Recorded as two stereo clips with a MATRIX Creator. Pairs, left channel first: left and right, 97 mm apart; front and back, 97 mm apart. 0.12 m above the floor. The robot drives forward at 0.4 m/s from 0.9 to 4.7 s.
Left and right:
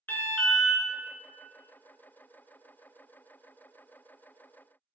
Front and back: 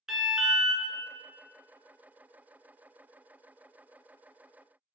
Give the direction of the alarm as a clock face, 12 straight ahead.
9 o'clock.